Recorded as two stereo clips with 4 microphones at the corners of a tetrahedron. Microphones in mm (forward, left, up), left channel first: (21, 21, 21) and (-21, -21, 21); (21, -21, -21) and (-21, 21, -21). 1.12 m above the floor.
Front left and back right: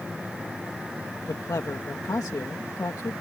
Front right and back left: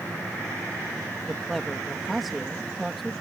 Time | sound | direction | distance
1.3 | a man speaking | 45° left | ?